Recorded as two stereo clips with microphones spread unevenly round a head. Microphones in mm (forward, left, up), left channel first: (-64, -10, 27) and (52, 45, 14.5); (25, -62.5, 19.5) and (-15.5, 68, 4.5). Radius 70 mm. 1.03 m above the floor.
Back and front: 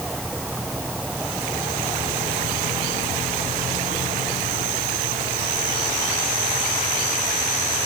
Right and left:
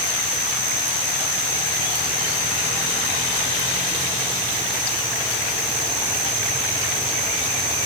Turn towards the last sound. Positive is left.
No sound to turn to.